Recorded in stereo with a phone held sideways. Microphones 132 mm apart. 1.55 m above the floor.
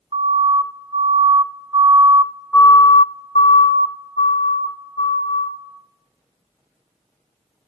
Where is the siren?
45° right (ahead or behind), 2 m; by 5.5 s 65° left (ahead or behind), 2 m.